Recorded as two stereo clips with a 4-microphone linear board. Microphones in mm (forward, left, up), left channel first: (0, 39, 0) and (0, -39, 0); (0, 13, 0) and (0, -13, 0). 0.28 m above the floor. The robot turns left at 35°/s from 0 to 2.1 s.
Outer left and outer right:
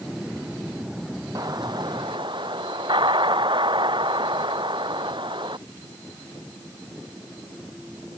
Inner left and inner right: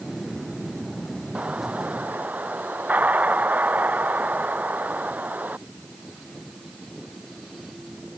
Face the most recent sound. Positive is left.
turn(degrees=-75)  # may be behind; listen again after turning